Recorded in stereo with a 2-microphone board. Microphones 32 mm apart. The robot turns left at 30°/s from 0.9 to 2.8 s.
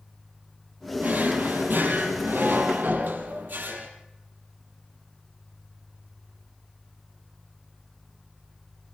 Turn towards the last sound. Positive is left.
turn(degrees=-105)